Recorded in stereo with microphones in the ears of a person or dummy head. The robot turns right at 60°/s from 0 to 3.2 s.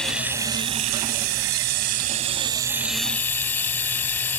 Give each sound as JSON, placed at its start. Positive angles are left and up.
{"t": 0.0, "sound": "running water", "azimuth_deg": 175}